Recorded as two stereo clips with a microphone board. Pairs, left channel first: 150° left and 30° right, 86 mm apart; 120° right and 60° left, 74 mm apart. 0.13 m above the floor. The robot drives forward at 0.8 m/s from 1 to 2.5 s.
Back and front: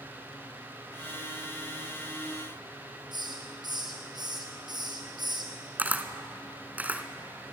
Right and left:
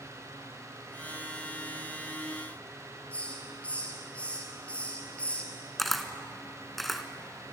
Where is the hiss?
50° right, 3 m.